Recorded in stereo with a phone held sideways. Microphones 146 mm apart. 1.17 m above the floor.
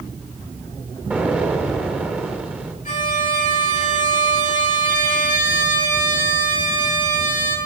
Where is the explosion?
10° right (ahead or behind), 3 m.